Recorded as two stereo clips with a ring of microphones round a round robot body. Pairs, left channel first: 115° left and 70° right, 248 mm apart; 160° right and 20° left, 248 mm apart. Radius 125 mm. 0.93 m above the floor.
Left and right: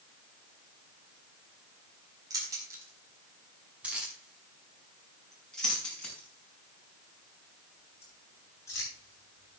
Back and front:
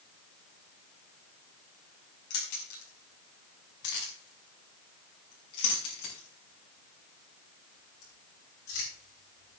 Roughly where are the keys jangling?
Behind right.